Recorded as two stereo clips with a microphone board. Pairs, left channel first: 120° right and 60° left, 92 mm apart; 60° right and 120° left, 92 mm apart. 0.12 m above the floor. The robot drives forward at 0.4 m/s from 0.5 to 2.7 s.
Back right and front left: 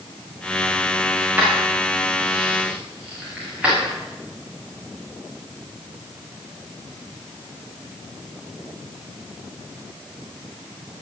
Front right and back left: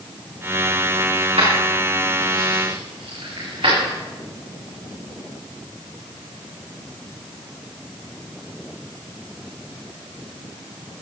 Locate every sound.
1.2 s keys jangling: 135° left, 8 m